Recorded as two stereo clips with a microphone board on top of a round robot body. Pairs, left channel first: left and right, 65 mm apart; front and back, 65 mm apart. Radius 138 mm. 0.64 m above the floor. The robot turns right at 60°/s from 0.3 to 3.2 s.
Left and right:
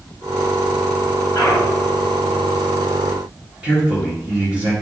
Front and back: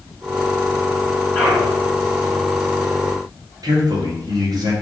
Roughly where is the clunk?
Left.